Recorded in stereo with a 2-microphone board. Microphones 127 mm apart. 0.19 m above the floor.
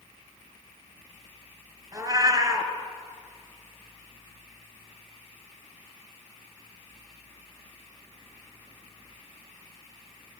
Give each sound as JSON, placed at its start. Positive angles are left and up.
{"t": 1.9, "sound": "a cat meowing", "side_deg": -25, "distance_m": 1.1}